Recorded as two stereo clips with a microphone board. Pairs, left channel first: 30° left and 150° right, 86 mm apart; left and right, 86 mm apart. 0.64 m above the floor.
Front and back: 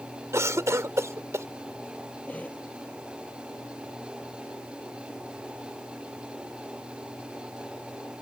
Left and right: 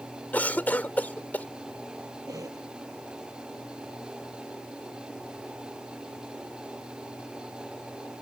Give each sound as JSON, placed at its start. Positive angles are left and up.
{"t": 0.3, "sound": "a cough", "azimuth_deg": 160}
{"t": 2.3, "sound": "a cough", "azimuth_deg": -40}